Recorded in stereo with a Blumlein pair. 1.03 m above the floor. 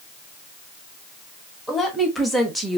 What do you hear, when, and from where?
1.7 s a woman speaking: 5° left, 1.6 m; by 2.8 s 10° right, 1.0 m